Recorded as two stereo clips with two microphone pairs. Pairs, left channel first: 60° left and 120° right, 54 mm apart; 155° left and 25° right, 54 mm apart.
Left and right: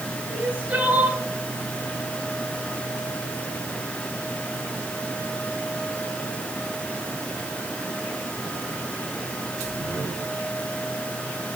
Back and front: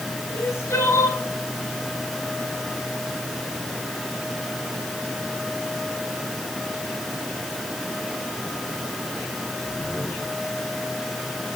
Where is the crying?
175° right, 3 m.